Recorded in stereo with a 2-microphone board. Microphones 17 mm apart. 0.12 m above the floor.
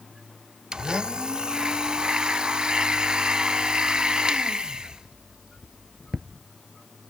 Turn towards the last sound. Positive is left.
turn(degrees=-50)  # may be behind; listen again after turning